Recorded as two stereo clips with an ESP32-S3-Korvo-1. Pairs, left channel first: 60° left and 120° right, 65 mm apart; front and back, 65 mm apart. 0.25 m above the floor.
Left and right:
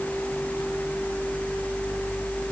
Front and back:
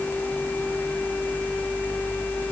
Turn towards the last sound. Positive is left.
No sound to turn to.